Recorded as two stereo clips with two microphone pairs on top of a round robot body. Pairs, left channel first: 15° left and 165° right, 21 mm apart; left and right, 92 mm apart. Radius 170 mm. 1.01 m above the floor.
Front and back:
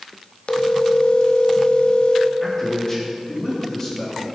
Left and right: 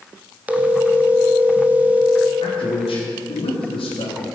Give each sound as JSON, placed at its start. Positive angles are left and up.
{"t": 0.5, "sound": "a phone ringing", "azimuth_deg": -15, "distance_m": 1.0}
{"t": 2.4, "sound": "a man speaking", "azimuth_deg": 80, "distance_m": 2.5}